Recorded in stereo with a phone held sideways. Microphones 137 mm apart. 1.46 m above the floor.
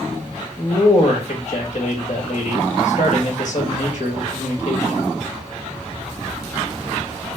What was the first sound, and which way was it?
A man speaking, 60° left (ahead or behind).